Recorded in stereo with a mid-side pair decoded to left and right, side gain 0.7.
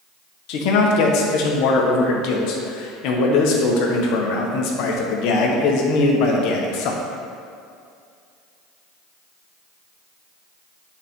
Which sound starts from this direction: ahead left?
A man speaking, at 0.5 s.